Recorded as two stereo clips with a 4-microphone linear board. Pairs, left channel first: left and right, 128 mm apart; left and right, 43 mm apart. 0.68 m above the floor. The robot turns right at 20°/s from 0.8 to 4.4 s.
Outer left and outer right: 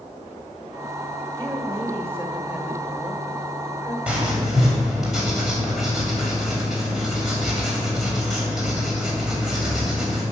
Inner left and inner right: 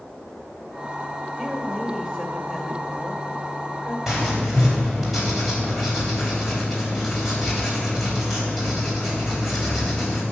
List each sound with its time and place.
1.4 s a woman speaking: 35° right, 2.5 m; by 4.0 s 15° left, 2.5 m
4.1 s writing: 10° right (ahead or behind), 3.5 m; by 10.2 s 5° right (ahead or behind), 3.5 m